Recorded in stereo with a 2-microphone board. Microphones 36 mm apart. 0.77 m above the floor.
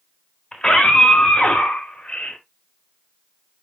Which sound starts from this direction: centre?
A scream, at 0.5 s.